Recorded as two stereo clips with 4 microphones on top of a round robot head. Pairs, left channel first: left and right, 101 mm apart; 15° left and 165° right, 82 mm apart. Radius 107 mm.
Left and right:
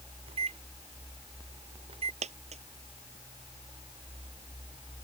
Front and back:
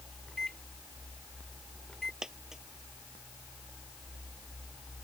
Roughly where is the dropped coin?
Right.